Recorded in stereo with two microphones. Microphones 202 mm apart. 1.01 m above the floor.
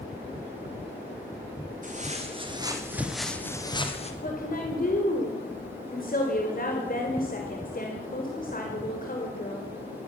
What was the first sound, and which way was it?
Footsteps, 35° right (ahead or behind).